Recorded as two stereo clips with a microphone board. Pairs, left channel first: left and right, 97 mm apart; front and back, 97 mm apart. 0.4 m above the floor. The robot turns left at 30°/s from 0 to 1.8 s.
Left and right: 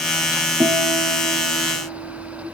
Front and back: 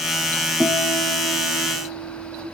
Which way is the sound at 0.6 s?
100° right.